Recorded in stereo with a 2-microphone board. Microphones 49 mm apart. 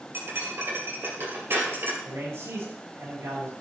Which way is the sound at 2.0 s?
65° right (ahead or behind).